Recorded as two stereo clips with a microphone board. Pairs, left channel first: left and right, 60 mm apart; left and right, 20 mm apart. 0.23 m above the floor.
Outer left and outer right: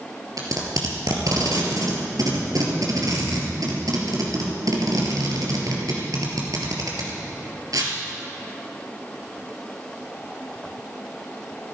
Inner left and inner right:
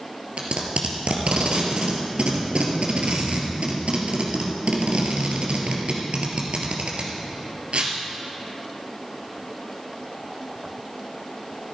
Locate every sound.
0.4 s tape being pulled: 75° right (ahead or behind), 3 m